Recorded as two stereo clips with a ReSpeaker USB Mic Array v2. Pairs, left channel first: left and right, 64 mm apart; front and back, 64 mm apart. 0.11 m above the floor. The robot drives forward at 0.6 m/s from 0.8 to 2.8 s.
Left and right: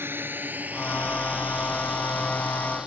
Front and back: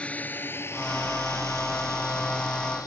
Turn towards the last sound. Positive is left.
turn(degrees=-10)